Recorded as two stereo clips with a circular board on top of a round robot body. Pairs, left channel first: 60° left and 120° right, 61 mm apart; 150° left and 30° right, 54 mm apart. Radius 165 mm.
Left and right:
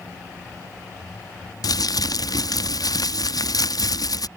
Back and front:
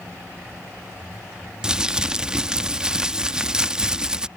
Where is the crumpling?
45° left.